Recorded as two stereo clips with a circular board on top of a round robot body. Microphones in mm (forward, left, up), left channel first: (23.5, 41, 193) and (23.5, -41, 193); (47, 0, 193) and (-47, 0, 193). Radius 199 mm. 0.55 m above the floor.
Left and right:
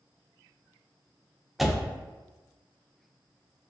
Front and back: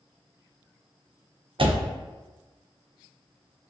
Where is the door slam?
Straight behind, 0.6 m.